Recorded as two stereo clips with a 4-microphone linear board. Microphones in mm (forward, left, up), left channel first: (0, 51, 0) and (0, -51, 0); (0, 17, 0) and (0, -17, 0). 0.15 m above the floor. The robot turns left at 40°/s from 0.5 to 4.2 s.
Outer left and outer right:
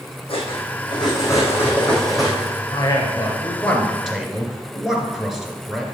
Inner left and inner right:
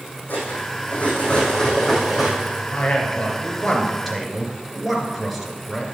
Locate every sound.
0.3 s cutlery clinking: 65° left, 3.5 m; by 2.6 s 20° right, 3.5 m
2.7 s a man speaking: 55° left, 2 m; by 5.8 s 5° right, 2 m